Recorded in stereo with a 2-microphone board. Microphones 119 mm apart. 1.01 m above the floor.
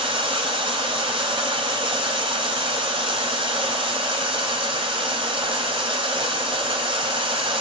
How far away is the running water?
About 3 m.